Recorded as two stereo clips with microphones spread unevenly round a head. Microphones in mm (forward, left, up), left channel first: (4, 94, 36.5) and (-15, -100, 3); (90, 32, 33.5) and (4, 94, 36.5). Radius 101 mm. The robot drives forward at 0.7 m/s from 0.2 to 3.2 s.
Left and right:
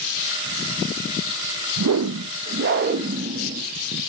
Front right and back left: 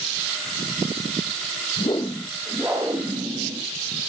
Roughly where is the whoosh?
Right.